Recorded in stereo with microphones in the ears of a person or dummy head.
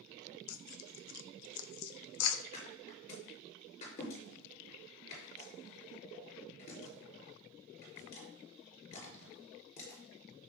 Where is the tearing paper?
90° left, 0.7 m.